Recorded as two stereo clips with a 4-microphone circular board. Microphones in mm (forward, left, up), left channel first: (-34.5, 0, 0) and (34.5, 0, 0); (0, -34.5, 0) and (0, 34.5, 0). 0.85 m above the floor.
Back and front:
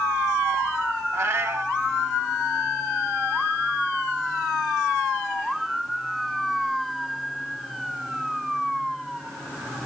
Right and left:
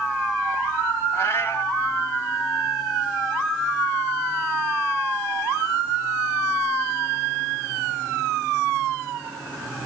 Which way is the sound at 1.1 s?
45° right.